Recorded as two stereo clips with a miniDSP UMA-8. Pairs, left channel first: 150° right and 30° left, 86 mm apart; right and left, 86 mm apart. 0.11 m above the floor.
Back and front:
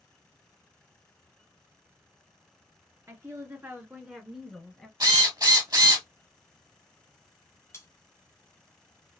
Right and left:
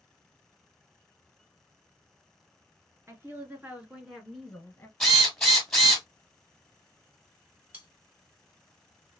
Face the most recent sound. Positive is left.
turn(degrees=155)